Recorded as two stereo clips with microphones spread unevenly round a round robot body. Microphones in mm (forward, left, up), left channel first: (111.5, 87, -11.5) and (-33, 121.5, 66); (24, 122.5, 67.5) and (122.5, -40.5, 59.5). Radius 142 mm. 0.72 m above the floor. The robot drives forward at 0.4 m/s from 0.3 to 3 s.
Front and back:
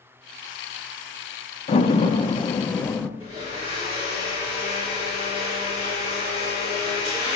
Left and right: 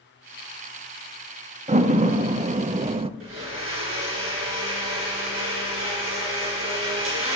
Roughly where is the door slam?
Ahead.